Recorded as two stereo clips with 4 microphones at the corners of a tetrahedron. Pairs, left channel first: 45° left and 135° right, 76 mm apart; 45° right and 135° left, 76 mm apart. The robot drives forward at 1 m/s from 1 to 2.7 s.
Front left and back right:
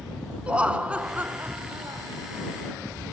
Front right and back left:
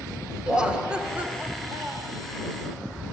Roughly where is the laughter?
Behind.